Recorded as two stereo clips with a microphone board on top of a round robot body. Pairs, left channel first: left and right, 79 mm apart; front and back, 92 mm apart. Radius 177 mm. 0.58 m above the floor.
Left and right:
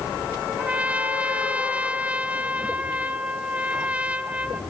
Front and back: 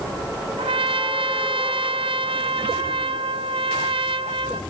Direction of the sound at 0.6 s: 165° right.